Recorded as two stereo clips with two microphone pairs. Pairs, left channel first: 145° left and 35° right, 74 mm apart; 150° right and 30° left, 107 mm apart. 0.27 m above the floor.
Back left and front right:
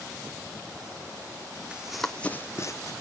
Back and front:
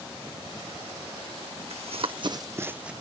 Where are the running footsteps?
40° left, 0.8 m; by 2.9 s 115° left, 0.8 m.